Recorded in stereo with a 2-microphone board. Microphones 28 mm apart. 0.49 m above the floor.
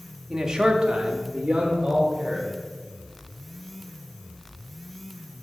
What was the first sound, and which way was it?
A man speaking, 15° right (ahead or behind).